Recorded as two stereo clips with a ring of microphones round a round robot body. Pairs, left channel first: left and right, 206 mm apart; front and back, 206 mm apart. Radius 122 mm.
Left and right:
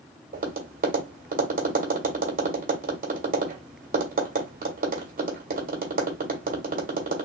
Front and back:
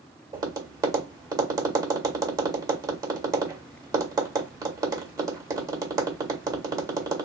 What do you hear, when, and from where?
0.3 s tapping: 115° right, 1.7 m